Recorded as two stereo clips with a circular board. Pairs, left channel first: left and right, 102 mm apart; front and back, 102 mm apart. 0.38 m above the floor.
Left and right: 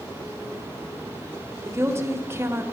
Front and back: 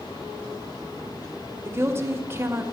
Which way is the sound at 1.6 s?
135° right.